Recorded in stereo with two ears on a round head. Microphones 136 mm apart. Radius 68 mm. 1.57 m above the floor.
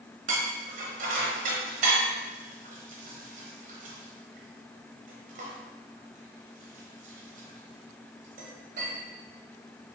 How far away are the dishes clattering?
About 0.9 m.